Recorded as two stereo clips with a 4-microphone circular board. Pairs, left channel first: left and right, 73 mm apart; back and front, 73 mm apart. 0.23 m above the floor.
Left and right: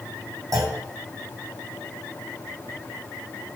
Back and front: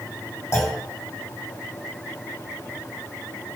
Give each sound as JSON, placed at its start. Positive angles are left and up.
{"t": 0.5, "sound": "a clunk", "azimuth_deg": -125, "distance_m": 2.5}